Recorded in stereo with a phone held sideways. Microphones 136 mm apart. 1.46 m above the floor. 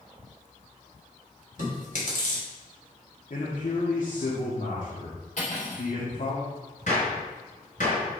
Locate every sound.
1.6 s chewing: 60° left (ahead or behind), 3 m
3.3 s a man speaking: 60° left (ahead or behind), 1.6 m
5.4 s cutlery clinking: 55° left (ahead or behind), 2.5 m
6.9 s a gunshot: 55° left (ahead or behind), 4 m